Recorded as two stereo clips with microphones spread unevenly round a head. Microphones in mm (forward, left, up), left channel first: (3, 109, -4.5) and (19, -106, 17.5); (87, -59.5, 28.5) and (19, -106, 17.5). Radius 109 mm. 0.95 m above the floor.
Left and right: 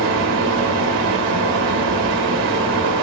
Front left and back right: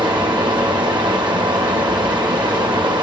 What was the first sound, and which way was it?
A fan, 120° right.